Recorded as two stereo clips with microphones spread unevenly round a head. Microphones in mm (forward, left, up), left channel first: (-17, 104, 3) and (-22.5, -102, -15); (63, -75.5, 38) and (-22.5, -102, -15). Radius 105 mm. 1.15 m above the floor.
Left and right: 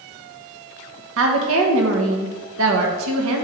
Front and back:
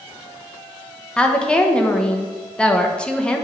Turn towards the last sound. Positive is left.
turn(degrees=-70)